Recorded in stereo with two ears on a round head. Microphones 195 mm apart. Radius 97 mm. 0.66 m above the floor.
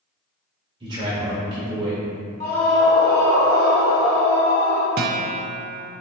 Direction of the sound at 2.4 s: 35° left (ahead or behind).